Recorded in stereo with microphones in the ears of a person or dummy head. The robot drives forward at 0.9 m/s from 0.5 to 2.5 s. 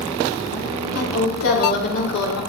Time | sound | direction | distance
0.9 | a woman speaking | 80° left | 3.5 m